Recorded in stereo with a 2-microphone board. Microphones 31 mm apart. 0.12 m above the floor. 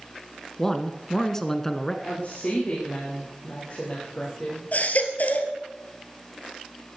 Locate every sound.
0.6 s a man speaking: 15° left (ahead or behind), 1.0 m
2.0 s a woman speaking: 55° left (ahead or behind), 6 m
4.7 s a baby crying: 60° left (ahead or behind), 1.9 m